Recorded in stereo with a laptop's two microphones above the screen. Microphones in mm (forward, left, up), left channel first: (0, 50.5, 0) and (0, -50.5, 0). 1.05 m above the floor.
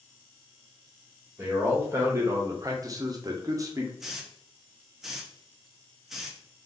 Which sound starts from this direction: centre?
A hiss, at 4.0 s.